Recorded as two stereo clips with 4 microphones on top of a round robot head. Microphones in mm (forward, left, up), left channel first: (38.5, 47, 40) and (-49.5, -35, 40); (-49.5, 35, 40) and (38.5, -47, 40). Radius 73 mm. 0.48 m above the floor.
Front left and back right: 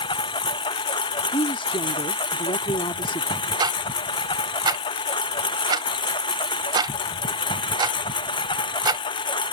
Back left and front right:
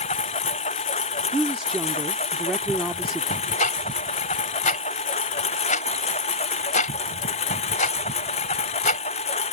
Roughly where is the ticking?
Behind.